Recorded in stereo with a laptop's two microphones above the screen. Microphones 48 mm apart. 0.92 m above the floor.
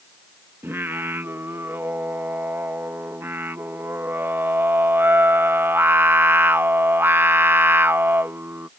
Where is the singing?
50° right (ahead or behind).